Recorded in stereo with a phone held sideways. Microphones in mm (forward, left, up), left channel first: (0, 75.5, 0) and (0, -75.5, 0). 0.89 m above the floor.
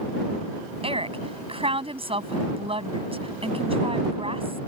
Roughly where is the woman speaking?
Right.